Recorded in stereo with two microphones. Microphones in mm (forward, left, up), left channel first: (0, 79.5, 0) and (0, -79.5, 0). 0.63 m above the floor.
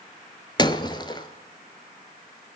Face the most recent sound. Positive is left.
turn(degrees=30)  # may be behind; listen again after turning